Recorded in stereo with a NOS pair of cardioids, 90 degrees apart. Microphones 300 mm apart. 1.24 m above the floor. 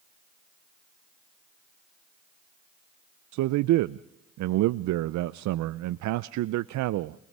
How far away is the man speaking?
About 0.5 m.